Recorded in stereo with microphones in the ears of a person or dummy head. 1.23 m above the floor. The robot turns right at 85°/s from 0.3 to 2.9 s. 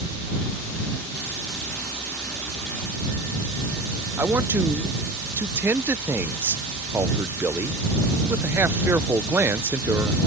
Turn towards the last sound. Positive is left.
turn(degrees=-10)  # may be behind; listen again after turning